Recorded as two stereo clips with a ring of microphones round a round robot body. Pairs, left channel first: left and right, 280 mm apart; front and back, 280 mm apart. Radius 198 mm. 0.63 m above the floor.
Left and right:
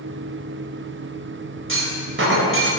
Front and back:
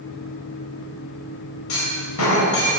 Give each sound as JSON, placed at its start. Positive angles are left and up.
{"t": 1.7, "sound": "a clunk", "azimuth_deg": -45, "distance_m": 4.0}